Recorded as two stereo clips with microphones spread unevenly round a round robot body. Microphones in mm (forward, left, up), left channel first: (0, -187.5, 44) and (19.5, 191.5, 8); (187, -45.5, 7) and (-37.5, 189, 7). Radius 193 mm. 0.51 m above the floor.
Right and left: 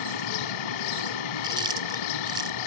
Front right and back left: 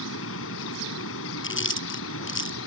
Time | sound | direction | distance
0.0 | an insect | 105° right | ?
1.4 | chewing | 5° left | ?